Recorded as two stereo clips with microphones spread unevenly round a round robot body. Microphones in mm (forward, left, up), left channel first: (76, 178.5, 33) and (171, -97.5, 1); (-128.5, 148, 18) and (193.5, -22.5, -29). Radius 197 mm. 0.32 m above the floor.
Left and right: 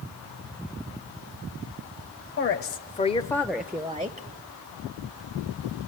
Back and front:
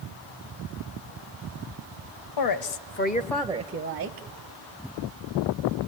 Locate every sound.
2.4 s a woman speaking: 160° left, 1.3 m; by 4.3 s 10° right, 1.4 m